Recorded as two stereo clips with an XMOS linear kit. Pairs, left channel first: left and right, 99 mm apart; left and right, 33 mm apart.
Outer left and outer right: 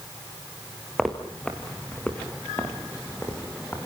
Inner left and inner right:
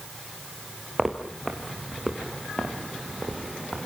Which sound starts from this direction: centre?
Footsteps, at 1.0 s.